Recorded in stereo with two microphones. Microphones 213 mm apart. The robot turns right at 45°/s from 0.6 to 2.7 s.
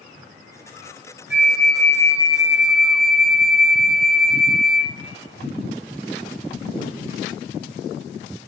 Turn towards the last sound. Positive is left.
turn(degrees=0)